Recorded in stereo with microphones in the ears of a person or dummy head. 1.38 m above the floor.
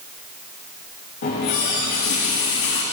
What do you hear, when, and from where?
1.2 s a running tap: 55° left (ahead or behind), 1.3 m